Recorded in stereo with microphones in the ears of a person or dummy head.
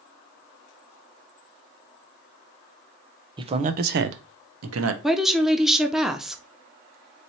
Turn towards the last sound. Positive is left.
turn(degrees=-5)  # may be behind; listen again after turning